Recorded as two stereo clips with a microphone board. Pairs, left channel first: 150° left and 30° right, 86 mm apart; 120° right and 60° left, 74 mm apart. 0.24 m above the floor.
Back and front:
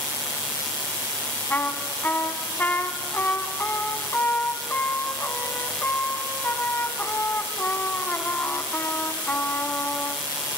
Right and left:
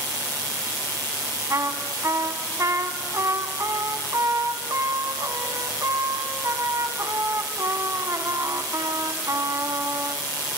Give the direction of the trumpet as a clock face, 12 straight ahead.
9 o'clock.